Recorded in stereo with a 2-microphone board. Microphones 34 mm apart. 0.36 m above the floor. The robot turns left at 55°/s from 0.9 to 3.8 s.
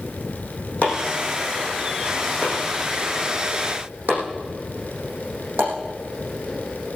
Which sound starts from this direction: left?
Chopping, at 0.8 s.